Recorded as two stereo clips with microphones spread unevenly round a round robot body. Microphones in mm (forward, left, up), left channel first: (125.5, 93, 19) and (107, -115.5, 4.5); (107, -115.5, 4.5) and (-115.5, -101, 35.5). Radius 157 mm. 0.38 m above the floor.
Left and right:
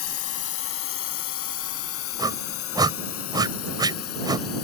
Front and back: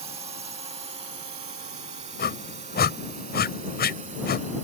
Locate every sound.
0.0 s a drone: 105° left
2.2 s a whoosh: 30° right